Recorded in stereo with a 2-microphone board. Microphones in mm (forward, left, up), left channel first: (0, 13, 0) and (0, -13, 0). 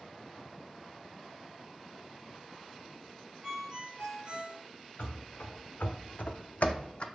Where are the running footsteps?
50° left (ahead or behind), 1.1 m; by 7.0 s 45° left (ahead or behind), 0.5 m.